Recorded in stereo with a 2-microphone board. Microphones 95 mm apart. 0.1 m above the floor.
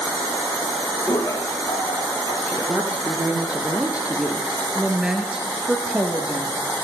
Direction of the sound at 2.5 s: 15° right (ahead or behind).